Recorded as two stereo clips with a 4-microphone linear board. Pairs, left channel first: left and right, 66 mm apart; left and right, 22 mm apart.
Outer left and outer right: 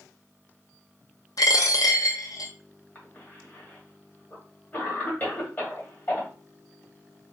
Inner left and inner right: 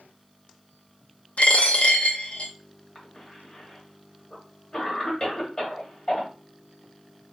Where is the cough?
30° left (ahead or behind), 1.7 m.